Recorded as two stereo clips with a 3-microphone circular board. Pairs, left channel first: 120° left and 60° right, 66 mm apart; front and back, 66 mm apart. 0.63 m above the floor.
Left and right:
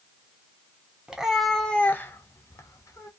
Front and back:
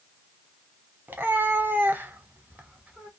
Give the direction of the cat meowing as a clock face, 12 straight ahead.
4 o'clock.